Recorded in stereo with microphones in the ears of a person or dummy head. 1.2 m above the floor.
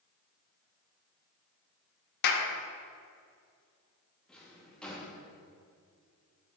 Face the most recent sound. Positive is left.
turn(degrees=5)  # may be behind; listen again after turning